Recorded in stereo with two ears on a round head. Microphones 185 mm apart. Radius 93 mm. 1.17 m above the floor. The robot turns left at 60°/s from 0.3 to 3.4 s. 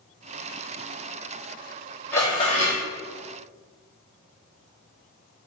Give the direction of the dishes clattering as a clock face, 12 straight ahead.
6 o'clock.